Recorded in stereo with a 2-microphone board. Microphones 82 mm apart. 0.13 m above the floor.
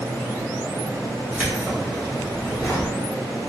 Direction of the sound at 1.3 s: 20° right (ahead or behind).